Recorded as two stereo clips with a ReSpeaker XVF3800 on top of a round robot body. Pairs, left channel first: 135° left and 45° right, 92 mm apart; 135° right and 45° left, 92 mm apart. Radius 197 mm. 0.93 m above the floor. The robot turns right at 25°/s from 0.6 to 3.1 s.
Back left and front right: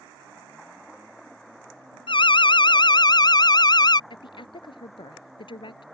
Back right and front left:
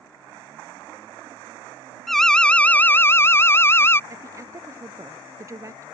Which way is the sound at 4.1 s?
105° left.